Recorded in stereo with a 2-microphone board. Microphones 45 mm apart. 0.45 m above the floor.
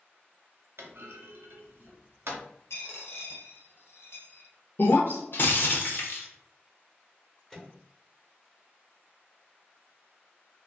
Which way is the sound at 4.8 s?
55° left (ahead or behind).